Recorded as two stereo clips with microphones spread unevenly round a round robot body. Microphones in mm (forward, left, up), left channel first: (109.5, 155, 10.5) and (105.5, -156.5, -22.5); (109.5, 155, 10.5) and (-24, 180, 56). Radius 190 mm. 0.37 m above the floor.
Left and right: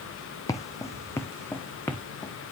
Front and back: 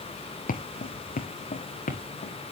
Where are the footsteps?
10° left, 1.2 m; by 2.3 s 5° left, 2 m.